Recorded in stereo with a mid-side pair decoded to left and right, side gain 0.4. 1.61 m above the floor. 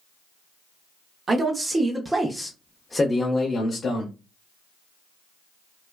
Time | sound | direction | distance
1.3 | a man speaking | 40° right | 0.9 m